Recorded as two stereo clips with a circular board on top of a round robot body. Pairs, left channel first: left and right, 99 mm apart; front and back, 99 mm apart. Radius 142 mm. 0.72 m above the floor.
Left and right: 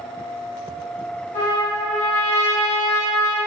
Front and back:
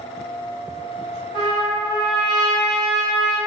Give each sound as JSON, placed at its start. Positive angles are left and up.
{"t": 1.3, "sound": "a trumpet", "azimuth_deg": 100, "distance_m": 1.2}